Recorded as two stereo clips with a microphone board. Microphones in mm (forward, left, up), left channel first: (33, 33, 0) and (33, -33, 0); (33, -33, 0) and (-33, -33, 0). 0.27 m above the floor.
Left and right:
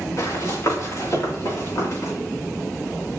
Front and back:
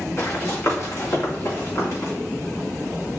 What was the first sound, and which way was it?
Running footsteps, 50° left.